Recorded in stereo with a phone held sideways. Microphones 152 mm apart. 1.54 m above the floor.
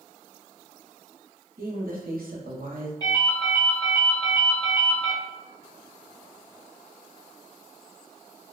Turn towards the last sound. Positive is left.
turn(degrees=20)  # may be behind; listen again after turning